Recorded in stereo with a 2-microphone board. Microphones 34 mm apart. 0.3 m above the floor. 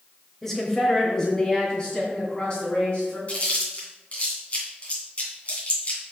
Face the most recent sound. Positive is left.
turn(degrees=40)  # may be behind; listen again after turning